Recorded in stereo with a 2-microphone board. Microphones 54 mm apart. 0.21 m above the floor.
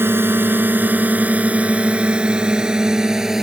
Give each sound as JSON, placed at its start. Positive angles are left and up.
{"t": 0.0, "sound": "a drone", "side_deg": -45}